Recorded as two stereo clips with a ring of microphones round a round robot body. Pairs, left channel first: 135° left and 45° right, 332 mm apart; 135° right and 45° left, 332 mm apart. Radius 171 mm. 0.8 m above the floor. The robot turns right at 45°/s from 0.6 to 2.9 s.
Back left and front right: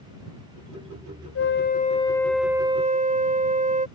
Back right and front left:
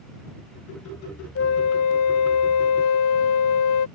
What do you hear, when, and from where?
1.4 s a flute: straight behind; by 3.9 s 110° right